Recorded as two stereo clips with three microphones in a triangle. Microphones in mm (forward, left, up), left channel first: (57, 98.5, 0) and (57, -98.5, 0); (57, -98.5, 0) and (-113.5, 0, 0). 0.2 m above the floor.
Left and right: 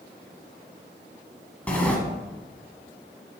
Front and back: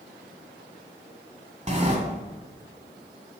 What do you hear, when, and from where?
1.7 s a sliding door: 170° left, 1.3 m